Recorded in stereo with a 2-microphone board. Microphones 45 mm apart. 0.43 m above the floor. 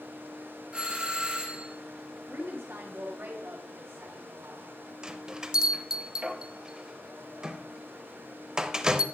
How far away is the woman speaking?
About 2.5 m.